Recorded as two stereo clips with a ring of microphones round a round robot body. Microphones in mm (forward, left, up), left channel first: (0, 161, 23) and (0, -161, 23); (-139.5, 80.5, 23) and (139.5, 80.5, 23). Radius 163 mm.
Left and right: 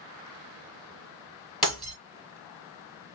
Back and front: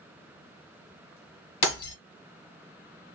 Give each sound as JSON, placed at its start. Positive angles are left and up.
{"t": 1.6, "sound": "breaking glass", "azimuth_deg": 180, "distance_m": 1.8}